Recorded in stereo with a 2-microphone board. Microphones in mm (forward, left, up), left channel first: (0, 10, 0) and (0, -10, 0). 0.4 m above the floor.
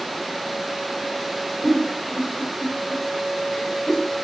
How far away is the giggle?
About 1.5 m.